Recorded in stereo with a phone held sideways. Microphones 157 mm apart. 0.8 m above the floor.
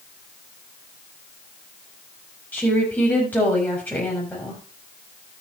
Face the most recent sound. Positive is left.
turn(degrees=10)  # may be behind; listen again after turning